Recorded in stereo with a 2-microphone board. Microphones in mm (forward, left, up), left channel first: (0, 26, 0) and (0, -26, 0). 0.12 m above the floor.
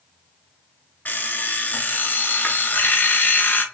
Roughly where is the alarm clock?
Left.